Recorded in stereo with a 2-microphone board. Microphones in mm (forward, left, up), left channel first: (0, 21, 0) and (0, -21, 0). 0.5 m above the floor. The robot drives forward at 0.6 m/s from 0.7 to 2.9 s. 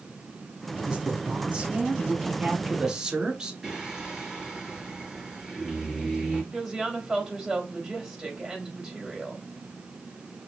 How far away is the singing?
About 4 m.